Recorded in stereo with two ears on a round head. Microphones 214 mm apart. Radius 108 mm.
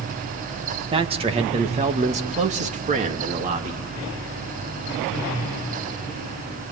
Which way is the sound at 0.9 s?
25° right (ahead or behind).